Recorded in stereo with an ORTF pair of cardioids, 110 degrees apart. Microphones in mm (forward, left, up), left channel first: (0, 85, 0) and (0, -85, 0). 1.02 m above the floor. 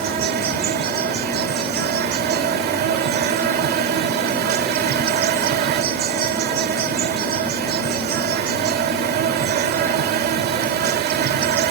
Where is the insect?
65° right.